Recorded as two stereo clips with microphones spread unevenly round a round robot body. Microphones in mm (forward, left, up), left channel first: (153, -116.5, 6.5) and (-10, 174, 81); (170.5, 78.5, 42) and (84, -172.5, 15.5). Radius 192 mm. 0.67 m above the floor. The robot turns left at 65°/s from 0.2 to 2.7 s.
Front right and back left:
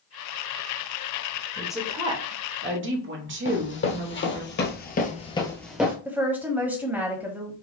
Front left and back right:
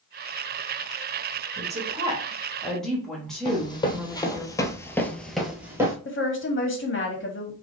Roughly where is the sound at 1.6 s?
Behind right.